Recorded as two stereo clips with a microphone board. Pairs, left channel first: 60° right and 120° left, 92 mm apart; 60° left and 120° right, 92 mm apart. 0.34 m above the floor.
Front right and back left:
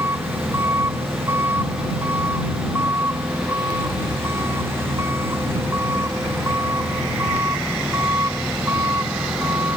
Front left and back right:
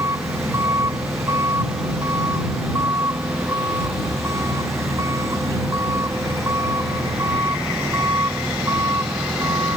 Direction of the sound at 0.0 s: 175° right.